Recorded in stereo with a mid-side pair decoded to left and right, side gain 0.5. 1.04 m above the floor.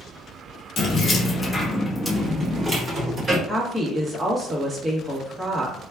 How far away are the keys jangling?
About 0.9 m.